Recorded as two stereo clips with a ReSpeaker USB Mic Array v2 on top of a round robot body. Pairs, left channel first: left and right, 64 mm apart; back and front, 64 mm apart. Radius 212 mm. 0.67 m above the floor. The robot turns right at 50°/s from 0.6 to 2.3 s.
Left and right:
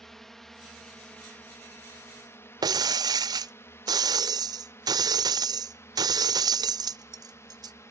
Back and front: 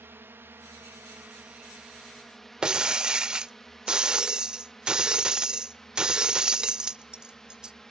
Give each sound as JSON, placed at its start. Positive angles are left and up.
{"t": 0.0, "sound": "a drone", "azimuth_deg": 10}
{"t": 2.6, "sound": "breaking glass", "azimuth_deg": -80}